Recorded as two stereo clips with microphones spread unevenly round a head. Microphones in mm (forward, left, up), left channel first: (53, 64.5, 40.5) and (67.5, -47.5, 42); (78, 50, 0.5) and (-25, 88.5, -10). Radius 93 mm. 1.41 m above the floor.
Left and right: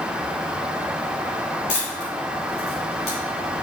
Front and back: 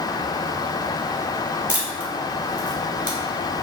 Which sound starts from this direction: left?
A camera shutter, at 1.7 s.